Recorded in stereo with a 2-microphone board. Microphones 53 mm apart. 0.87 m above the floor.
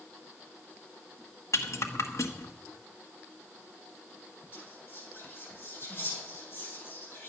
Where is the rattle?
65° left (ahead or behind), 1.3 m.